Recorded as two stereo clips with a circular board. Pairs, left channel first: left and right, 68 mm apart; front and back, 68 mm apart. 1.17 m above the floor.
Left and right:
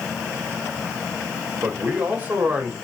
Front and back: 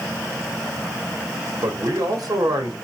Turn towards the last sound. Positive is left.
turn(degrees=-155)